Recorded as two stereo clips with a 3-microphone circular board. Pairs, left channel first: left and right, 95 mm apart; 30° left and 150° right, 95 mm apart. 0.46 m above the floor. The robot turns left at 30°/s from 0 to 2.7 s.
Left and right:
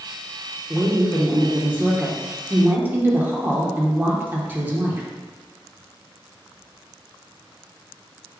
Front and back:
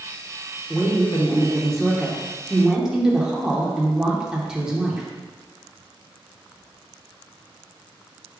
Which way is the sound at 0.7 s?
20° right.